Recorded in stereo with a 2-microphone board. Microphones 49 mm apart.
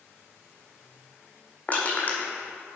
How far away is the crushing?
About 1.8 m.